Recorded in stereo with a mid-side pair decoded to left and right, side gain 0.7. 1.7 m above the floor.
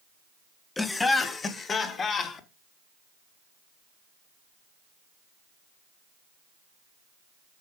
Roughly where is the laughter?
Ahead.